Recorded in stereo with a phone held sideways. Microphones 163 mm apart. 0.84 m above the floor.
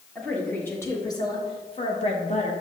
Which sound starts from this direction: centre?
A woman speaking, at 0.1 s.